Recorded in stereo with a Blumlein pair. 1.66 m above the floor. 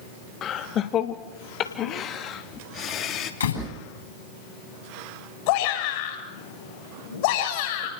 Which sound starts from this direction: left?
A door slam, at 3.4 s.